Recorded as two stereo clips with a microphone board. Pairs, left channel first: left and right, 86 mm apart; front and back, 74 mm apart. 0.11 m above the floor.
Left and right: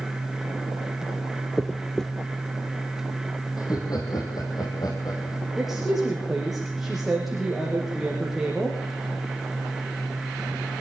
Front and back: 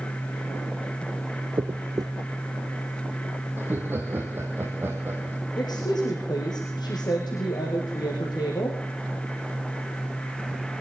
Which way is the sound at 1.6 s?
175° left.